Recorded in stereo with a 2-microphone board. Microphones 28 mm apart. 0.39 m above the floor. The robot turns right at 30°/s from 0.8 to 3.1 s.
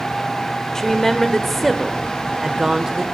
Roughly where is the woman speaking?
Behind left.